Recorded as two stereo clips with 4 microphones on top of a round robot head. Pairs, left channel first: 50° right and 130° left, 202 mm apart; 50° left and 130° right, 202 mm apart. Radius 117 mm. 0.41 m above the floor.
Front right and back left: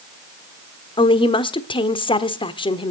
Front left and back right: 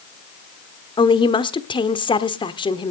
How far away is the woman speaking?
About 1.2 m.